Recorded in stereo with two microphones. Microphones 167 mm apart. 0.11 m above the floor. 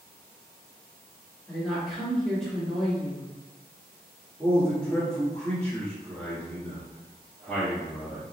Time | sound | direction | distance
1.5 | a woman speaking | 5° left (ahead or behind) | 1.7 m
4.4 | a man speaking | 10° left (ahead or behind) | 1.3 m